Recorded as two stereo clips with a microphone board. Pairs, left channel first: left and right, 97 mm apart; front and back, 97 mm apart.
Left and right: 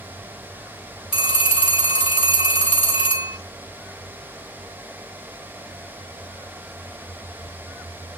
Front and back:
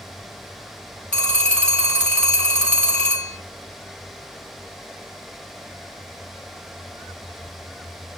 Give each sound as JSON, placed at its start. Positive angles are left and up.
{"t": 1.1, "sound": "a phone ringing", "azimuth_deg": 80, "distance_m": 0.9}